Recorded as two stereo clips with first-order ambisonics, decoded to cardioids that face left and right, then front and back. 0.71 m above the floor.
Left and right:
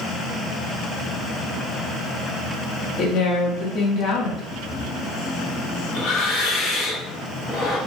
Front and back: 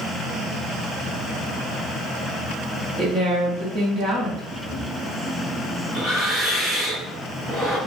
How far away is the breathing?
About 1.5 m.